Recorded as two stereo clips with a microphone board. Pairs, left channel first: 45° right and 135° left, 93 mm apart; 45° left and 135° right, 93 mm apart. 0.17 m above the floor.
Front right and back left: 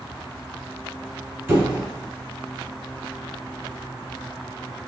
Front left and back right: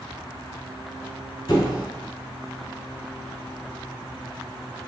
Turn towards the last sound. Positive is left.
turn(degrees=75)